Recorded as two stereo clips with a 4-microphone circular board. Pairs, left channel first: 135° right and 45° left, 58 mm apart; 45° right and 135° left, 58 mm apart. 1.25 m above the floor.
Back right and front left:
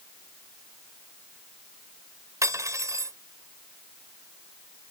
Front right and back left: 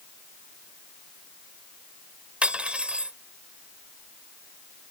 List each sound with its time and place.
2.4 s cutlery clinking: 60° left